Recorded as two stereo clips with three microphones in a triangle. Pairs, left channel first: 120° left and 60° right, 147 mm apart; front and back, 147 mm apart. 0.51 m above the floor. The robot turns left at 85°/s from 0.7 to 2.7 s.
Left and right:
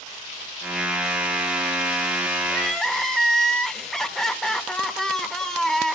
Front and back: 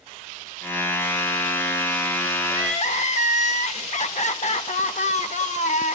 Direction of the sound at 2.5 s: 50° left.